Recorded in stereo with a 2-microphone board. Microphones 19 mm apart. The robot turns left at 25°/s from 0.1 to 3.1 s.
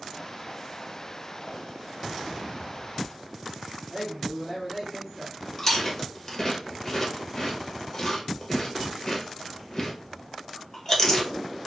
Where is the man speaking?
10° left (ahead or behind), 2.5 m.